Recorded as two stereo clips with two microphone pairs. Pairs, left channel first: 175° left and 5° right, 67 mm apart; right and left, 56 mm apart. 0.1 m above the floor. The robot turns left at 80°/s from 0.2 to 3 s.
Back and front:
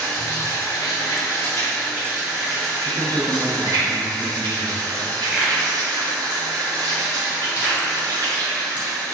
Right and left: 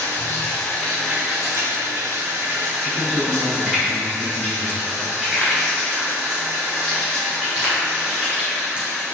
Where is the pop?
45° left, 1.5 m.